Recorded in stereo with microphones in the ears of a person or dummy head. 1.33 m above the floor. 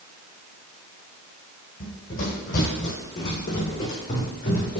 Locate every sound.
1.8 s running footsteps: 45° left (ahead or behind), 2 m